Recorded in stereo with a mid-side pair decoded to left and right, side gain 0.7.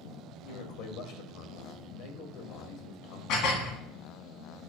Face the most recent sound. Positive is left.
turn(degrees=65)